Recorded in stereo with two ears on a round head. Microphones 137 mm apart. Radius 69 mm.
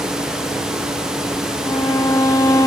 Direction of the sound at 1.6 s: 20° left (ahead or behind).